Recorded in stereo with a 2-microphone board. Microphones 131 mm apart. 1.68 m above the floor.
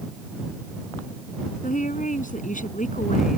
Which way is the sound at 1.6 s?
80° left.